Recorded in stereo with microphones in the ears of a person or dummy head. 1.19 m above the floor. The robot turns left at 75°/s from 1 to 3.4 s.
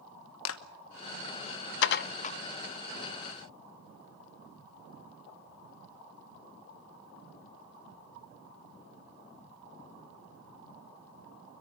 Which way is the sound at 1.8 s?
75° left (ahead or behind).